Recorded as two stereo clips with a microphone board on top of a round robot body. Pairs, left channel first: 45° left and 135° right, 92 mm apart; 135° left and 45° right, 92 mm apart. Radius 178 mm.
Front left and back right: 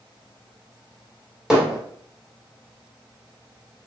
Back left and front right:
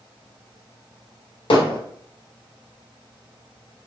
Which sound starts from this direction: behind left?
Hammering, at 1.5 s.